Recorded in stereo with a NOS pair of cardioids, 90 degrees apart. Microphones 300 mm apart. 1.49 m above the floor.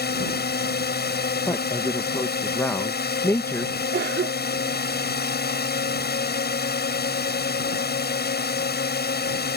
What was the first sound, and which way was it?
A drone, 35° left.